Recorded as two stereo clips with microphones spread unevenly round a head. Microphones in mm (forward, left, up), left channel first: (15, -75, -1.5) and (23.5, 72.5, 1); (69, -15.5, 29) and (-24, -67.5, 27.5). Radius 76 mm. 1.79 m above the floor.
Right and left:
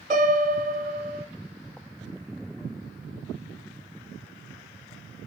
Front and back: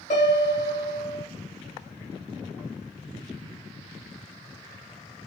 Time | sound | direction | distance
0.1 | a piano | 45° left | 1.1 m